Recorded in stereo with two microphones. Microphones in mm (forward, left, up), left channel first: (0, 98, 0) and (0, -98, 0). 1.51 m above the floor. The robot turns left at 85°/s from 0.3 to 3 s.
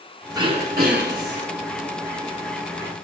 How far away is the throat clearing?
About 4.5 m.